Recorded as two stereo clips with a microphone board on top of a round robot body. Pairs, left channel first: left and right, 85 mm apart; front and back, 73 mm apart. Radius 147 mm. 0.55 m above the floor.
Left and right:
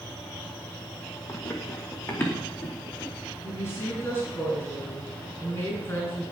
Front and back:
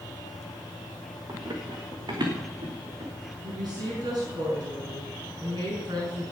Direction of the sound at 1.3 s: 145° left.